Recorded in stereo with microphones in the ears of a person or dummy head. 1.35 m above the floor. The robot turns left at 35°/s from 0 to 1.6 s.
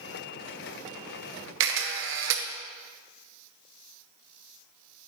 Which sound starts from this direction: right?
A camera shutter, at 1.6 s.